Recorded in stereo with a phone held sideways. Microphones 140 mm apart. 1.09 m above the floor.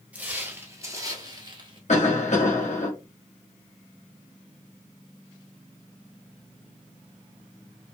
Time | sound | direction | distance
0.1 | footsteps | 10° right (ahead or behind) | 1.3 m
1.9 | a cough | 55° left (ahead or behind) | 1.2 m